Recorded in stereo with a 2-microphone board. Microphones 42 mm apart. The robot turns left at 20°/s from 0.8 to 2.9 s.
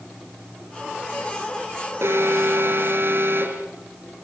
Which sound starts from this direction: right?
An alarm, at 2.0 s.